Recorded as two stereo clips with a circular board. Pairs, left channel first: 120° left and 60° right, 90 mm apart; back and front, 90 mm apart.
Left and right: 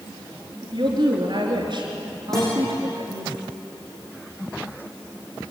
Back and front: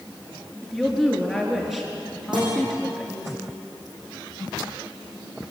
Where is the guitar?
35° left, 8 m.